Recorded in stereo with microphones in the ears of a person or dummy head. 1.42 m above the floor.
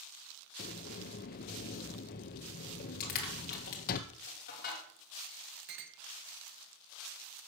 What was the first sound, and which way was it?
A sliding door, 50° left (ahead or behind).